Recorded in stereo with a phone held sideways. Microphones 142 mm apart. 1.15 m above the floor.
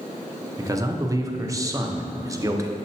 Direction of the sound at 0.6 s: 25° right (ahead or behind).